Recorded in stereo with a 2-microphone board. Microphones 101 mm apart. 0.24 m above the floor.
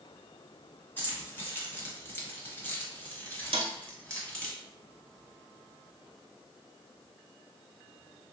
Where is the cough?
No cough in this recording.